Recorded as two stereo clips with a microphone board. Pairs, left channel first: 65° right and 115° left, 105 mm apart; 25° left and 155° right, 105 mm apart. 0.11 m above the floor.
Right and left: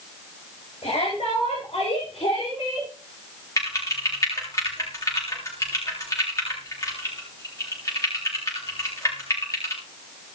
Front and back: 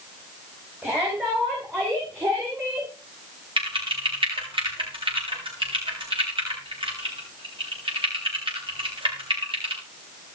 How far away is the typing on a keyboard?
About 7.5 m.